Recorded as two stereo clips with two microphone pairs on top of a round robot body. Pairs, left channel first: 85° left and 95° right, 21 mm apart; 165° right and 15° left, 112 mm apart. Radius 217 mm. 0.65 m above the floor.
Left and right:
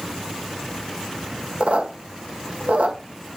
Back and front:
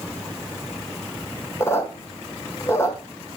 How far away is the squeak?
About 1.6 m.